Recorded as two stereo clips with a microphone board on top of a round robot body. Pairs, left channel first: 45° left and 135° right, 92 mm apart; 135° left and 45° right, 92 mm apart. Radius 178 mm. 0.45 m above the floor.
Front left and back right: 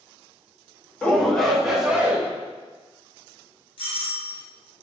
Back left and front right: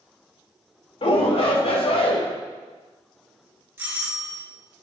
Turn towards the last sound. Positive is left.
turn(degrees=20)